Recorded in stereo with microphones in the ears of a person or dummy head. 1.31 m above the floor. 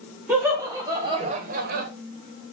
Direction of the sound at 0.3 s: 10° right (ahead or behind).